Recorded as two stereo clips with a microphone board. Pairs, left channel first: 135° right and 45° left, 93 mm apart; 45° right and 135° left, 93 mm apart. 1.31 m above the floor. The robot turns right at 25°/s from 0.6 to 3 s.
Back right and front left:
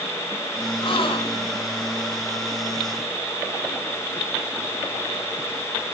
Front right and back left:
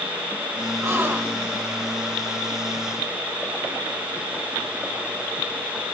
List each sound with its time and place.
0.8 s a gasp: 165° right, 2 m; by 1.6 s 145° right, 2 m